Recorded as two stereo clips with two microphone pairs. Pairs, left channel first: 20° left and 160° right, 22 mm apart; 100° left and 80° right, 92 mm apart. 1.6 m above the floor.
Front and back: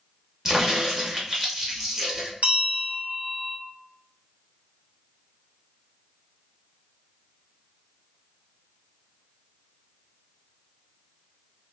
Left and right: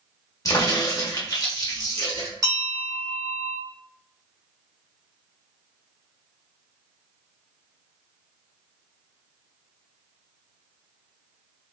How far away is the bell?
About 1.1 m.